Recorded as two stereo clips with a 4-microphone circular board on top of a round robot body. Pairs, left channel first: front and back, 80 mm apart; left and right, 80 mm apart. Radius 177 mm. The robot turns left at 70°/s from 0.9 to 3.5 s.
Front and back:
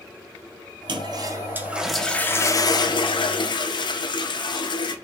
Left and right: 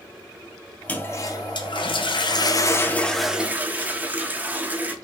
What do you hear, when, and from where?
0.9 s a toilet flushing: 160° left, 0.6 m; by 5.0 s 20° right, 0.6 m